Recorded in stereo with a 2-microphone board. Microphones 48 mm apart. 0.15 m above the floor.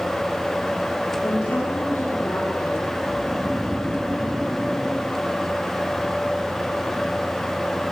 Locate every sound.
1.2 s a woman speaking: 65° left (ahead or behind), 8 m
3.1 s snoring: 40° right (ahead or behind), 4.5 m